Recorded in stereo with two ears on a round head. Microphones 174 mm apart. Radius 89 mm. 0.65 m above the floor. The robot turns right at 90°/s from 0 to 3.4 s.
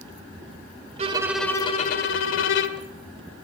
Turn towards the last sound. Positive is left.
turn(degrees=180)